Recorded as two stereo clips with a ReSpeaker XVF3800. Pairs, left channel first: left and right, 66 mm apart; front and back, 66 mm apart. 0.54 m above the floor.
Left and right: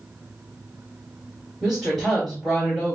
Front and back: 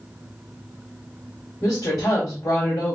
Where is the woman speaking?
5° right, 2 m.